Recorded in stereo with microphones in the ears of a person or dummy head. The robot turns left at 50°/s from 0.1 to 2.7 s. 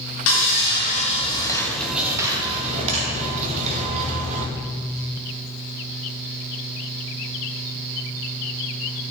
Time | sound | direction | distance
0.3 | sawing | 85° left | 1.7 m